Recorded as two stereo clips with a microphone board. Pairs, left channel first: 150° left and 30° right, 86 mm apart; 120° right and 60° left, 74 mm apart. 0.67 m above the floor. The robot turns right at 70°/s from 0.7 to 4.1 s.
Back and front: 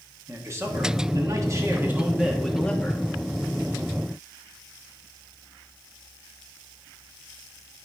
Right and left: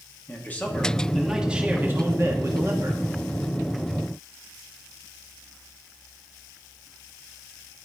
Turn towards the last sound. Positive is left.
turn(degrees=175)